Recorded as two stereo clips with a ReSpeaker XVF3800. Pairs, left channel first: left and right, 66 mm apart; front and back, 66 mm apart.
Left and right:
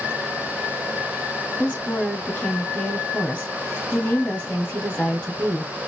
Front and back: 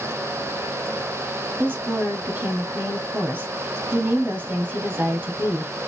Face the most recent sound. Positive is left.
turn(degrees=155)